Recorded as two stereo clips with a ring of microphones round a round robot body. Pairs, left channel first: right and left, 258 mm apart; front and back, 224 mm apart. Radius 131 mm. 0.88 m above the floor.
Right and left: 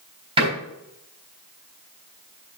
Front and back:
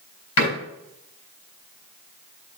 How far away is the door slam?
About 3.5 m.